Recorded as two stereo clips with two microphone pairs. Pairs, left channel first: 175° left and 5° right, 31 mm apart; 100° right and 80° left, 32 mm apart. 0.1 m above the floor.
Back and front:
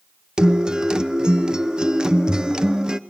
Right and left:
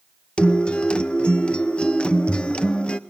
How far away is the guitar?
About 0.8 m.